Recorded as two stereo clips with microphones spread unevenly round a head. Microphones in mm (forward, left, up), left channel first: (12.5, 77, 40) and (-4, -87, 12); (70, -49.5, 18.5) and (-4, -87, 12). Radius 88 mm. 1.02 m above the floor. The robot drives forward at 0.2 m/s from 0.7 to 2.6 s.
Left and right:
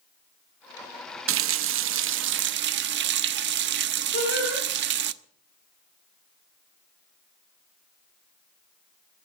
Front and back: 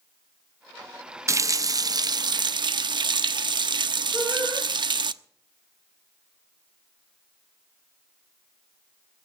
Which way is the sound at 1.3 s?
95° right.